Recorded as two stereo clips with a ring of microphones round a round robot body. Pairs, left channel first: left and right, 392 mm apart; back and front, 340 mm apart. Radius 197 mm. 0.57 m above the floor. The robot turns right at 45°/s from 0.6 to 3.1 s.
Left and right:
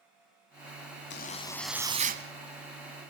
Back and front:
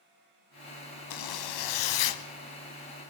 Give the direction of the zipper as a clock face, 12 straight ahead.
7 o'clock.